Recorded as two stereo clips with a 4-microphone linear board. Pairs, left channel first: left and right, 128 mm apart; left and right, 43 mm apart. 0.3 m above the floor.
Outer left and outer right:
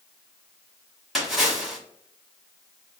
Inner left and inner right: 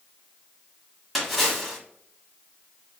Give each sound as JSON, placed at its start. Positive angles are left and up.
{"t": 1.1, "sound": "a splash", "side_deg": -5, "distance_m": 1.2}